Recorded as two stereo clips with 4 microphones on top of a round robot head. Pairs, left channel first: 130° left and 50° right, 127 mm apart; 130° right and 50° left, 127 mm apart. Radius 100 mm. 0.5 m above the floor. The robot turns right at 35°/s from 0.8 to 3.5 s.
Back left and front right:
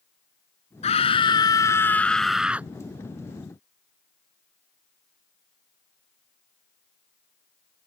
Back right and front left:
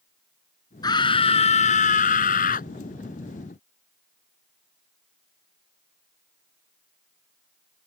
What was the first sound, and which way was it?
A scream, 170° left.